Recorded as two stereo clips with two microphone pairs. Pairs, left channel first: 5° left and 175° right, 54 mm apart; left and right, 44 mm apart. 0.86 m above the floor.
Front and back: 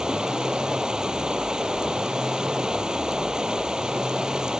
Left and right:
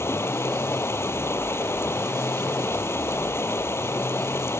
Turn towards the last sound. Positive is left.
turn(degrees=110)